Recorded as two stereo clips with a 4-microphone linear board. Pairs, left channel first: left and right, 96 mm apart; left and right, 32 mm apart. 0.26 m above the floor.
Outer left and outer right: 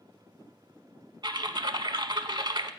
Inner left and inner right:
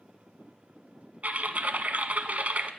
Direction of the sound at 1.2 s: 55° right (ahead or behind).